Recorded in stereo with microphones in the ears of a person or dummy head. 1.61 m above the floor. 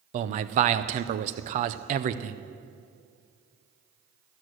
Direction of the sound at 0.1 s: 45° right (ahead or behind).